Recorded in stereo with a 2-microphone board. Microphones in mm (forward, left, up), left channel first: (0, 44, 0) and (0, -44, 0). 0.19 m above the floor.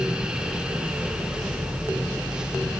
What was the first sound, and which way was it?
Only background noise.